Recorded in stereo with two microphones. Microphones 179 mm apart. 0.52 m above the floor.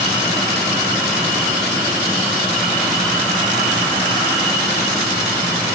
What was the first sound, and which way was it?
Only background noise.